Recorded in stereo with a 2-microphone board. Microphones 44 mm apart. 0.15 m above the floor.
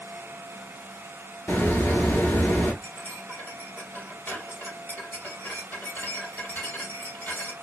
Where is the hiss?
65° left (ahead or behind), 0.9 m.